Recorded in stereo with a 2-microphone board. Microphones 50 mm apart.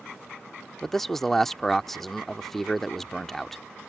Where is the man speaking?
5° left (ahead or behind).